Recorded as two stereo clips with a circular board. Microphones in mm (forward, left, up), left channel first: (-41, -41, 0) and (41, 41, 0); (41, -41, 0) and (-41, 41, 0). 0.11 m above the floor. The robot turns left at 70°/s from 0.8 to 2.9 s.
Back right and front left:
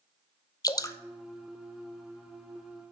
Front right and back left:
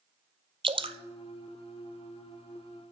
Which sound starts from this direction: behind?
Dripping, at 0.6 s.